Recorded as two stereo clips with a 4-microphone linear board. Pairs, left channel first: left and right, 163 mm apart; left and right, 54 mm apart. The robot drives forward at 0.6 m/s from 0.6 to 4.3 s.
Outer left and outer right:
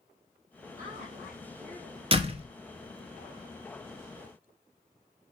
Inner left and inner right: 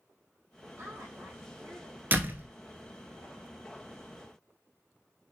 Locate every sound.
0.8 s a woman speaking: 45° right (ahead or behind), 3.5 m; by 2.0 s 50° right (ahead or behind), 3 m
2.1 s a door slam: 35° right (ahead or behind), 1.3 m